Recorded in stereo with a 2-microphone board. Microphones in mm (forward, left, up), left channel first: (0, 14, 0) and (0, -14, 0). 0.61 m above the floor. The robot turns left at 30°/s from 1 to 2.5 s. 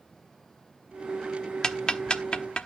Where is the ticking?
25° left (ahead or behind), 0.9 m; by 2.7 s 40° left (ahead or behind), 0.9 m.